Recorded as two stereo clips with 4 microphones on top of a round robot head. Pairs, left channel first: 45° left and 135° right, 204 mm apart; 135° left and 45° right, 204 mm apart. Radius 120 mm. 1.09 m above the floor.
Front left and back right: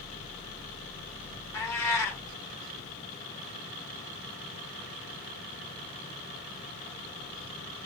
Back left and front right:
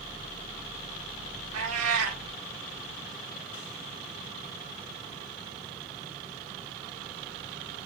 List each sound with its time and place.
1.5 s a cat meowing: 35° right, 1.1 m